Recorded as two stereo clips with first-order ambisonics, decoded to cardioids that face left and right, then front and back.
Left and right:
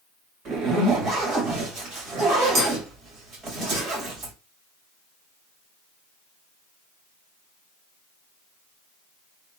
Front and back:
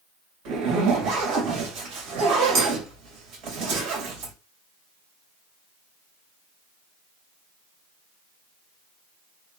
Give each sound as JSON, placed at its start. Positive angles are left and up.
{"t": 0.5, "sound": "a zipper", "azimuth_deg": -145, "distance_m": 1.9}